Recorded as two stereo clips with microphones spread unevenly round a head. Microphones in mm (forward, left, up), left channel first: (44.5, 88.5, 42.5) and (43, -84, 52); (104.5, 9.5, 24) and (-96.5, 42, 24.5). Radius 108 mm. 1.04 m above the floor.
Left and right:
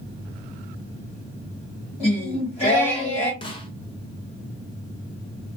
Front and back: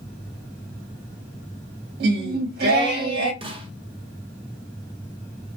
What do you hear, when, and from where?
2.0 s singing: 140° left, 1.3 m
3.4 s a snare drum: 125° left, 0.7 m